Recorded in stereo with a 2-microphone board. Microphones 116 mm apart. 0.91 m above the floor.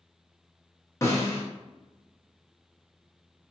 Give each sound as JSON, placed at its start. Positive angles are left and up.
{"t": 1.0, "sound": "a snare drum", "side_deg": 25, "distance_m": 0.8}